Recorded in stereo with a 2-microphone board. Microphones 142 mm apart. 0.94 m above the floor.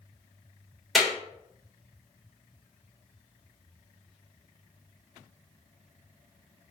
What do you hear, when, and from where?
0.9 s a clap: centre (ahead or behind), 3 m